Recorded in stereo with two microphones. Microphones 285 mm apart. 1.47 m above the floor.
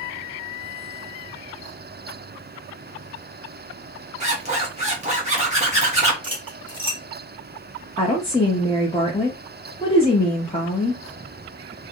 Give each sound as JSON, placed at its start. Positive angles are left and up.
{"t": 4.2, "sound": "a zipper", "side_deg": -25, "distance_m": 1.5}
{"t": 6.2, "sound": "cutlery clinking", "side_deg": -15, "distance_m": 1.1}
{"t": 8.0, "sound": "a woman speaking", "side_deg": 20, "distance_m": 0.9}